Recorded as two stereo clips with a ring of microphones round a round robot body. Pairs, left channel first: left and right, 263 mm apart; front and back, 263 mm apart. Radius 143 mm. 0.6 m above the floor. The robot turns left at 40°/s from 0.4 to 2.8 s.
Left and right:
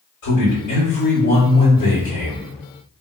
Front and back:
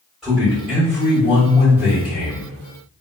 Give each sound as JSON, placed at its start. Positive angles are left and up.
{"t": 0.2, "sound": "a man speaking", "azimuth_deg": 90, "distance_m": 1.5}